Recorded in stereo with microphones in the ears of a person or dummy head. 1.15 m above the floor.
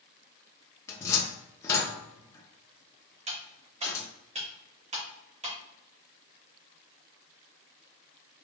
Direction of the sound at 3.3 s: 35° right (ahead or behind).